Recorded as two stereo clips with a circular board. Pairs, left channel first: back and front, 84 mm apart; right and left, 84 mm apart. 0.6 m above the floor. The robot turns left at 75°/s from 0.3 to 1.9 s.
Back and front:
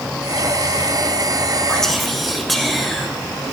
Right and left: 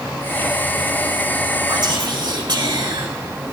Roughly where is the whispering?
Left.